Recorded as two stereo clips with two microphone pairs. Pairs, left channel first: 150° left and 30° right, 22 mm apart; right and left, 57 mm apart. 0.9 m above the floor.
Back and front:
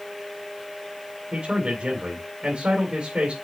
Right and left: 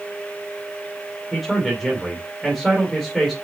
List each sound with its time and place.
1.3 s a man speaking: straight ahead, 2.5 m